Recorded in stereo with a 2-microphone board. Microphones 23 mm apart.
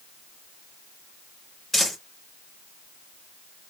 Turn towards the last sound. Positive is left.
turn(degrees=10)  # may be behind; listen again after turning